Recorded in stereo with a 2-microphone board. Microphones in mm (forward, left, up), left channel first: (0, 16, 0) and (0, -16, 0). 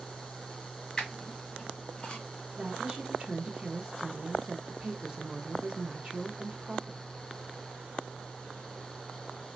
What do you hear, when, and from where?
1.0 s a squeak: 25° left (ahead or behind), 2 m
2.6 s a woman speaking: 20° right (ahead or behind), 0.7 m